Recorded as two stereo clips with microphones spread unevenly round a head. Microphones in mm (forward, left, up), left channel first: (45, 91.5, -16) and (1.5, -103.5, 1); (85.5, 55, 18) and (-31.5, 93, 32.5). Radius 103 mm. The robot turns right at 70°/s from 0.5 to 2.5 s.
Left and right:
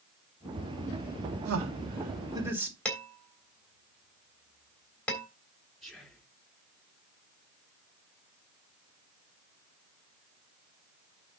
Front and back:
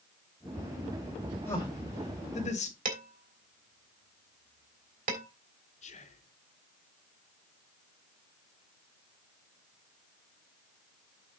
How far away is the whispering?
About 3 m.